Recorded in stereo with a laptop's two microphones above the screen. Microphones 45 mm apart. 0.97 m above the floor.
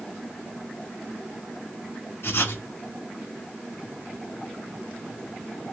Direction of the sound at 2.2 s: 85° left.